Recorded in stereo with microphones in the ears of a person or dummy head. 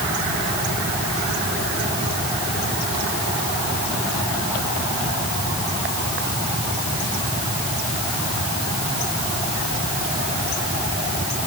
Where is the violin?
I don't hear a violin.